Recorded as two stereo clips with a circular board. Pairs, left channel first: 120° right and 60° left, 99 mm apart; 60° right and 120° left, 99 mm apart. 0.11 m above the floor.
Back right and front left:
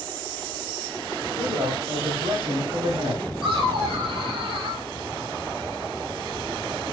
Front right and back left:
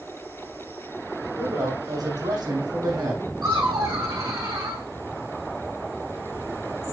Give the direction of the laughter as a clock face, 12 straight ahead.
9 o'clock.